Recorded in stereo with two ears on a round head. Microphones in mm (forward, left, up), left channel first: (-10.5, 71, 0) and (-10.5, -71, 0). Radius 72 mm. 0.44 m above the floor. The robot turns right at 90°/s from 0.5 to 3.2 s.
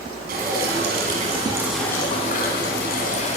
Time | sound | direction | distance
0.3 | dripping | 115° right | 4 m